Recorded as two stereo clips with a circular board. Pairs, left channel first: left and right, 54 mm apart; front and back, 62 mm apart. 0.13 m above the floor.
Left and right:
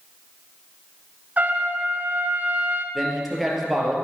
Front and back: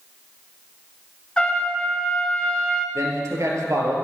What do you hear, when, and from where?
1.4 s a trumpet: 65° right, 1.2 m
3.0 s a man speaking: straight behind, 2.5 m